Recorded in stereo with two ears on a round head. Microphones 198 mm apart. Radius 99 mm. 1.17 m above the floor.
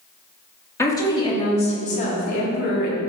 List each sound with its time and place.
0.8 s a woman speaking: 15° left (ahead or behind), 2.0 m; by 3.0 s 50° left (ahead or behind), 2.5 m